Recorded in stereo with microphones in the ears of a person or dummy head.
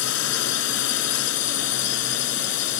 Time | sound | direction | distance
0.0 | a drone | 85° left | ?